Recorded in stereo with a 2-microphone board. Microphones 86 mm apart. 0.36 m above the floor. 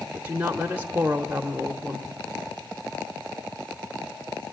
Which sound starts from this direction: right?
A woman speaking, at 0.1 s.